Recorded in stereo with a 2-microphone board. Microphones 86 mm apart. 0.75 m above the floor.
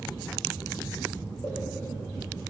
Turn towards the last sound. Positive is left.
turn(degrees=30)  # may be behind; listen again after turning